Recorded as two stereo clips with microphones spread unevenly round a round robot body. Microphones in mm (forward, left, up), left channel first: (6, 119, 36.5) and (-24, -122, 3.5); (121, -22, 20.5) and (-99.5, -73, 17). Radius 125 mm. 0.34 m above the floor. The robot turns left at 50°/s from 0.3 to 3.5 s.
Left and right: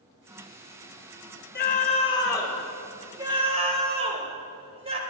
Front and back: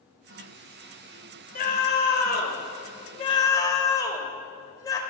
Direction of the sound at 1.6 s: 45° left.